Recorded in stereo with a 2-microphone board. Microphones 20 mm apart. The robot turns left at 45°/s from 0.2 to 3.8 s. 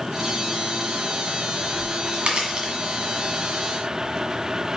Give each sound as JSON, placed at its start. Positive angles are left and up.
{"t": 1.7, "sound": "a crack", "side_deg": -70, "distance_m": 1.8}